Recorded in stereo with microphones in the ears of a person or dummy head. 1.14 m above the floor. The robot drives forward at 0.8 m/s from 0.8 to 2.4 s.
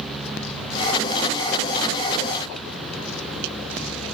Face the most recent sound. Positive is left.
No sound to turn to.